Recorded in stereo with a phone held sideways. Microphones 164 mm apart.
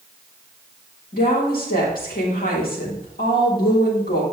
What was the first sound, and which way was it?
A woman speaking, 65° left (ahead or behind).